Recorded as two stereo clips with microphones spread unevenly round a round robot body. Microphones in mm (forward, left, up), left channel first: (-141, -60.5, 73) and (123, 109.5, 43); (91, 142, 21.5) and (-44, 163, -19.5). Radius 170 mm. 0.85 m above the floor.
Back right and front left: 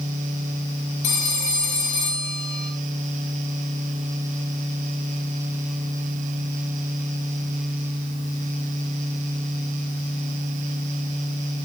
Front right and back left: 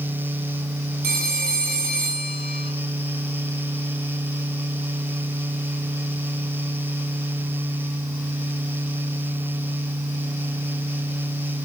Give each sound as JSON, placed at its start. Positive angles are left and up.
{"t": 1.0, "sound": "a phone ringing", "azimuth_deg": 180, "distance_m": 4.0}